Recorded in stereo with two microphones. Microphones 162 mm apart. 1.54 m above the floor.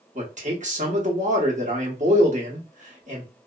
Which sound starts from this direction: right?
A man speaking, at 0.1 s.